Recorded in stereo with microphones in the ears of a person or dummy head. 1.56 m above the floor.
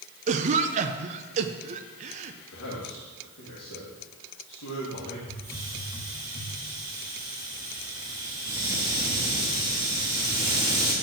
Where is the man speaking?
85° left, 2 m.